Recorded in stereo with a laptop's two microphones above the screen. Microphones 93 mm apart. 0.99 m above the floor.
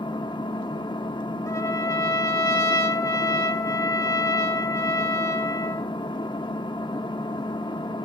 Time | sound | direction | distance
0.0 | an engine running | 55° left (ahead or behind) | 1.0 m
1.5 | a trumpet | 40° left (ahead or behind) | 2.5 m